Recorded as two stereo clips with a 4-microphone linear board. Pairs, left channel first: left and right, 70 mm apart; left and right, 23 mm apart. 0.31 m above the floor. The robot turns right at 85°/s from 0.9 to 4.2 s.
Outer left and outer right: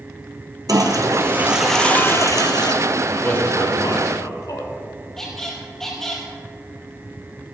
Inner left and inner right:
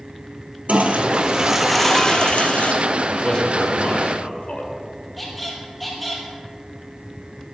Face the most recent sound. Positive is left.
turn(degrees=5)  # may be behind; listen again after turning